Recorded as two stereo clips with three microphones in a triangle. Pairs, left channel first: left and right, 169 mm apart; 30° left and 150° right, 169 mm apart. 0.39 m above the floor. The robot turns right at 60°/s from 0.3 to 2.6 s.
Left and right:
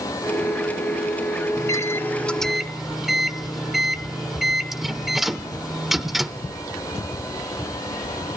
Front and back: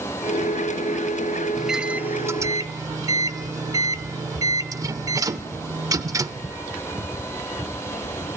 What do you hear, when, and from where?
1.6 s a microwave: 120° left, 0.6 m; by 6.5 s 175° right, 0.6 m